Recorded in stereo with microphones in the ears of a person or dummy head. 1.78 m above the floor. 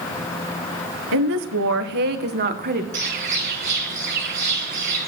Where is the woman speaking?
80° right, 1.4 m; by 2.8 s 40° right (ahead or behind), 1.8 m.